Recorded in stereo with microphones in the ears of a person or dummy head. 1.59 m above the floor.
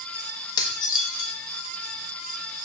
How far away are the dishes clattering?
About 1.3 m.